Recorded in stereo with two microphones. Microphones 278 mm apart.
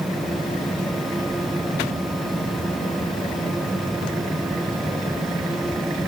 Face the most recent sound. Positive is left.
No sound to turn to.